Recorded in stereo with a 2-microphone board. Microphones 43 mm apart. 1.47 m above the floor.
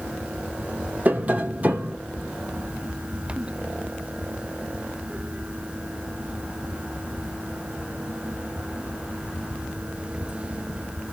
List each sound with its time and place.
1.1 s tapping: 30° right (ahead or behind), 1.2 m